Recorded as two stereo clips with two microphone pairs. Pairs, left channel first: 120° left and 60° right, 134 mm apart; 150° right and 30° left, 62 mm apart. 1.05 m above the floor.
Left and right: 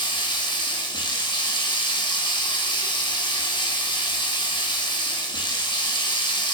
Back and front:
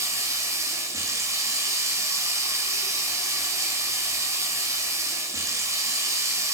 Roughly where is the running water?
Ahead left.